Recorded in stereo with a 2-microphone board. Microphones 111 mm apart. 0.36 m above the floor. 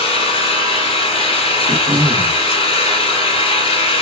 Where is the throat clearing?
60° right (ahead or behind), 0.9 m.